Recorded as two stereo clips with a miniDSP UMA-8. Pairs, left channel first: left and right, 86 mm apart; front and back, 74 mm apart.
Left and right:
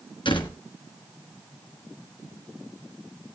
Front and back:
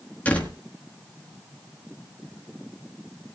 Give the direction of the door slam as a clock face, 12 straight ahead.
10 o'clock.